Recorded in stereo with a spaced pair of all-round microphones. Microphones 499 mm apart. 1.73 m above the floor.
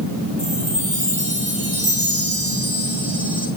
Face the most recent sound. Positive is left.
turn(degrees=-15)  # may be behind; listen again after turning